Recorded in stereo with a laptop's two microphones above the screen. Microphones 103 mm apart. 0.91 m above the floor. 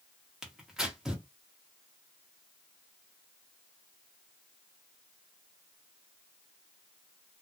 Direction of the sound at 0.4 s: 5° right (ahead or behind).